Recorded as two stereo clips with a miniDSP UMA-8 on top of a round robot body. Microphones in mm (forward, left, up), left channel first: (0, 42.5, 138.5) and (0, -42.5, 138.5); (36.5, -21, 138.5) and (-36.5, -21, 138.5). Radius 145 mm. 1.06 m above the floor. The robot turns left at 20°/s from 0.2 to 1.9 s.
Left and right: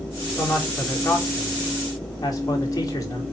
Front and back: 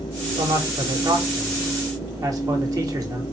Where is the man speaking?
170° left, 3 m; by 3.2 s 140° left, 3 m.